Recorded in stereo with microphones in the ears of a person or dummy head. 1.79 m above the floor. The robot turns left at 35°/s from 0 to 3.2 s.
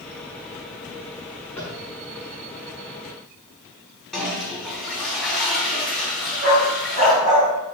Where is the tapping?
5° left (ahead or behind), 1.2 m; by 1.8 s 10° left (ahead or behind), 1.2 m.